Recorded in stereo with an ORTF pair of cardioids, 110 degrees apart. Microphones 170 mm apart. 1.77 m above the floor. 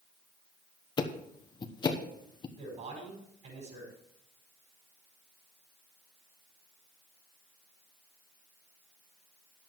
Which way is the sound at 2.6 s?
45° right.